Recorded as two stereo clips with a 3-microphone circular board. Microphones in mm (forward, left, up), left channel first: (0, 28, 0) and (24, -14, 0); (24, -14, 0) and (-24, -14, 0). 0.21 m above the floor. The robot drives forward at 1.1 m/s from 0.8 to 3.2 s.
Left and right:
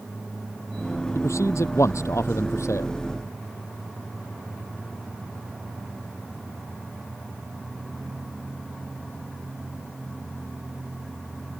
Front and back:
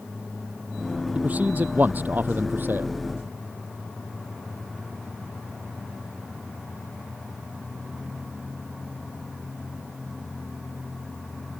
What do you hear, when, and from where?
1.1 s a man speaking: 120° left; by 2.9 s 135° left